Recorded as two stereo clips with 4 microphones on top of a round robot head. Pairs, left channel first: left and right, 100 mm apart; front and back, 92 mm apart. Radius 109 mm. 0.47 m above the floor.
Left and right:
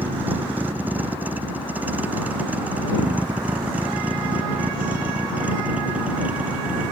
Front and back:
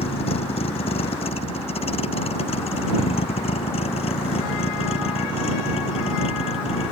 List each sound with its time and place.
0.0 s a vehicle: 15° right; by 6.9 s 10° right